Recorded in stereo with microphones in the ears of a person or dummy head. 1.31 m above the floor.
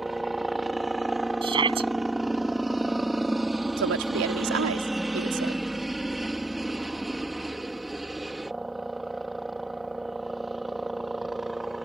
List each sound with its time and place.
0.0 s a helicopter: 5° right (ahead or behind)
1.4 s a shout: 35° right (ahead or behind)
3.8 s a woman speaking: 85° right